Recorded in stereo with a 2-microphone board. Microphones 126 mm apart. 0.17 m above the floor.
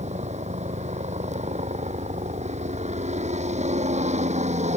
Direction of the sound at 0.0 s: 70° right (ahead or behind).